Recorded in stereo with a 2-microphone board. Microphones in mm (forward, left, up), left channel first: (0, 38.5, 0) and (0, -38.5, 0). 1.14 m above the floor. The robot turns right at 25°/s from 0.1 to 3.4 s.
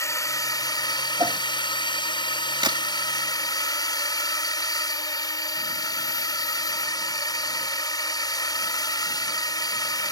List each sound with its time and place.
0.0 s a drone: 40° left; by 10.1 s 125° left
1.2 s a whoosh: 50° right (ahead or behind); by 1.4 s 60° right (ahead or behind)
2.6 s a crack: 75° right (ahead or behind)